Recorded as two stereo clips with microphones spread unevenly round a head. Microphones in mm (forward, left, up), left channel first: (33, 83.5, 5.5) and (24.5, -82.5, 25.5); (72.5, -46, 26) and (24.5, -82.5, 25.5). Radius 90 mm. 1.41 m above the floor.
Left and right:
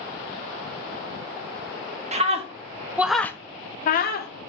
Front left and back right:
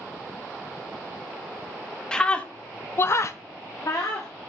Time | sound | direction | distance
2.1 | a scream | 40° right | 0.9 m